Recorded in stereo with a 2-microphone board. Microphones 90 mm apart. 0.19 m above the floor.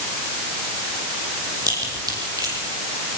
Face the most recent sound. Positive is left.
turn(degrees=-45)  # may be behind; listen again after turning